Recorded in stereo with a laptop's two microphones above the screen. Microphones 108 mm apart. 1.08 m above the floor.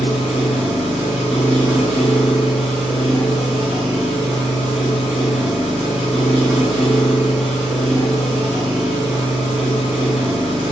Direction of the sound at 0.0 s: 10° right (ahead or behind).